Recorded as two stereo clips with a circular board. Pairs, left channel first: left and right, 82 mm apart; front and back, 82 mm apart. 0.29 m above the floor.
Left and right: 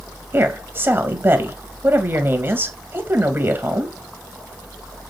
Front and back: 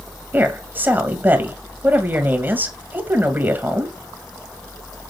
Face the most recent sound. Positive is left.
turn(degrees=-130)